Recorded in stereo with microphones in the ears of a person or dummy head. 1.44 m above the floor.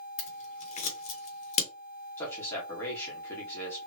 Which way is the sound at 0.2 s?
45° left (ahead or behind).